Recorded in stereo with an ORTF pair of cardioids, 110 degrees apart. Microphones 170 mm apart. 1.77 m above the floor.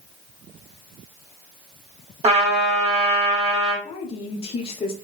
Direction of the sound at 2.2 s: 40° right.